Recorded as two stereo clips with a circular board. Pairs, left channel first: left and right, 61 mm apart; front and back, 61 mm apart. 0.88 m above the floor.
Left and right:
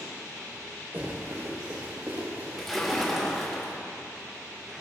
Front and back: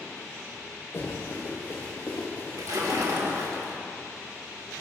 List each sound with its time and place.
0.9 s running footsteps: 40° right, 4.5 m; by 3.4 s 60° right, 6.5 m
2.6 s a splash: straight behind, 2.0 m